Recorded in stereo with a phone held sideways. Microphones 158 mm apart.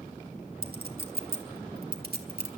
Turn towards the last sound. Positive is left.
turn(degrees=-80)